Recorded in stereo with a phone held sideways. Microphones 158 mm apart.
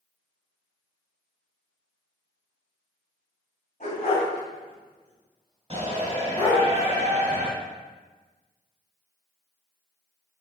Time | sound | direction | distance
3.8 | a dog barking | 50° left (ahead or behind) | 3 m
5.7 | a shout | 40° right (ahead or behind) | 2.5 m